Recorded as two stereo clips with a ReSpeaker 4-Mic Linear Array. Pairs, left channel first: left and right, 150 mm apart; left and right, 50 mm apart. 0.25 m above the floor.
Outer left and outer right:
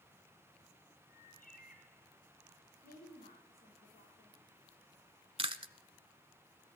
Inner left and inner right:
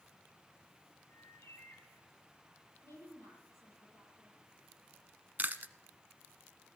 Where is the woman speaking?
80° left, 8 m.